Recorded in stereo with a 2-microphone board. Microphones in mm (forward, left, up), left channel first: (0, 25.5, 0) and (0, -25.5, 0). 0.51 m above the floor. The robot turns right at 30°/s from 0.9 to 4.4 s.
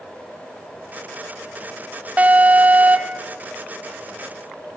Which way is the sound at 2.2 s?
115° right.